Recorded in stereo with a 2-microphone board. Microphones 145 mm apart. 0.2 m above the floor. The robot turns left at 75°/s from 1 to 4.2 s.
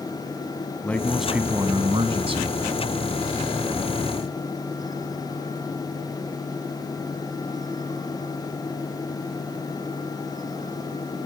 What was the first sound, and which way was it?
A man speaking, 15° left.